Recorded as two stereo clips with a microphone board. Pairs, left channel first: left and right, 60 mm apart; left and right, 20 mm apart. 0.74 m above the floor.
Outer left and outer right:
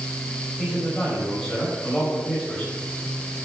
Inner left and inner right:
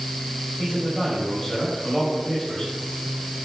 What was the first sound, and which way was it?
A man speaking, 15° left (ahead or behind).